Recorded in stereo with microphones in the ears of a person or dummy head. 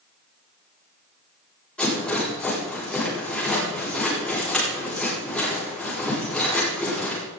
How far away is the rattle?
About 8 m.